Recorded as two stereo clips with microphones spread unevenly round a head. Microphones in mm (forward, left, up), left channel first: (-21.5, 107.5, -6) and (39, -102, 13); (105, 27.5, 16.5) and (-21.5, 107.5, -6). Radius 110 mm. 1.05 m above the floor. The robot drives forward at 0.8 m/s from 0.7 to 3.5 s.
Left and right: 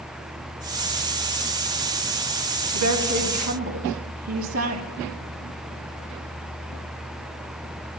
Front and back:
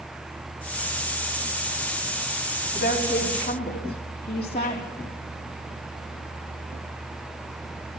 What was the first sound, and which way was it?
A woman speaking, 85° right.